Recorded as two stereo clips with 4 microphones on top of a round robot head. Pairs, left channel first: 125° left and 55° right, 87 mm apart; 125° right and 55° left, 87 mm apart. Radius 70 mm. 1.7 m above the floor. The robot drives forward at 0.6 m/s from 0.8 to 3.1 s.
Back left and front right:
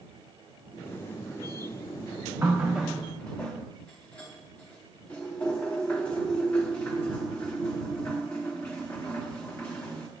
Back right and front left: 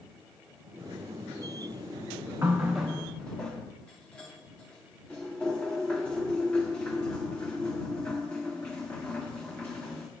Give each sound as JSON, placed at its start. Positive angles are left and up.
{"t": 2.4, "sound": "a running tap", "azimuth_deg": 5, "distance_m": 0.7}